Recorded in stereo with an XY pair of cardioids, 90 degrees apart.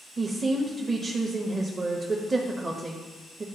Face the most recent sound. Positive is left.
turn(degrees=-40)